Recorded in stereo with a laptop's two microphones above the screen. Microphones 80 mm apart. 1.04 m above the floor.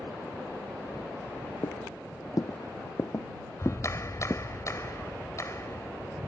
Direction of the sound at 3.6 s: 40° left (ahead or behind).